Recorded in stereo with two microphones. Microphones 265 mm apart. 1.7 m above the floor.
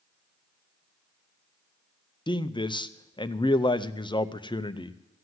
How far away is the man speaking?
About 0.6 m.